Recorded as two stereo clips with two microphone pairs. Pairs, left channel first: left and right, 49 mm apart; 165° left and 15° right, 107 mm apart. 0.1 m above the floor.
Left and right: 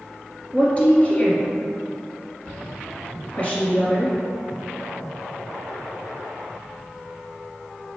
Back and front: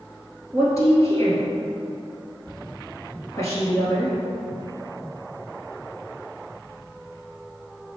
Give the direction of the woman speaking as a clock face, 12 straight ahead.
8 o'clock.